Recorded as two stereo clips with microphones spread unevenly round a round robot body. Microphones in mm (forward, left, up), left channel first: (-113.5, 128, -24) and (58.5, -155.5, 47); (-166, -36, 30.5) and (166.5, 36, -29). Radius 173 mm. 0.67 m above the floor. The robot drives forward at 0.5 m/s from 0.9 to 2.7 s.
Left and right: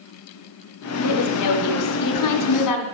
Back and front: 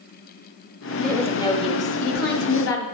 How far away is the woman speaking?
About 1.1 m.